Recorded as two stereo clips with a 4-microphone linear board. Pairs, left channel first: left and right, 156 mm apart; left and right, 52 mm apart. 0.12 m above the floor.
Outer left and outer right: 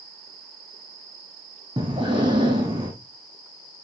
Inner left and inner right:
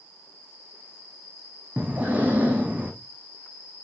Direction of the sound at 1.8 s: 30° right (ahead or behind).